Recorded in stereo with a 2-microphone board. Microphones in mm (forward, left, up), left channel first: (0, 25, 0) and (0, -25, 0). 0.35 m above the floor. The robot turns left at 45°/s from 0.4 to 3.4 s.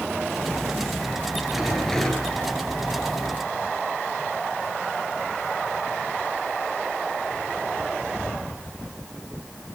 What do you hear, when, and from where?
1.5 s a rattle: 175° right, 7.5 m; by 2.4 s 150° left, 7.5 m